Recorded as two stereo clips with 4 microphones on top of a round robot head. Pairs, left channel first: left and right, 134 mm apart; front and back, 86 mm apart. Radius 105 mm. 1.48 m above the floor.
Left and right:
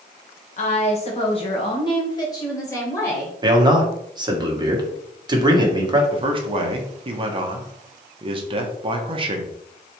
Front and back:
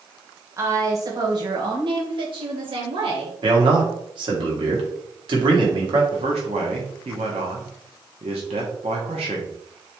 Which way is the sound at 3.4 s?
150° right.